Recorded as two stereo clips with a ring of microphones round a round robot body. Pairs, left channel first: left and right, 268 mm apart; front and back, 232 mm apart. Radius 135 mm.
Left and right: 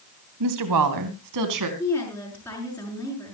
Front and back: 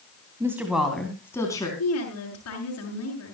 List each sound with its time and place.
0.4 s a woman speaking: 100° right, 2.5 m; by 1.7 s 75° right, 3.5 m
1.8 s a woman speaking: 5° left, 6 m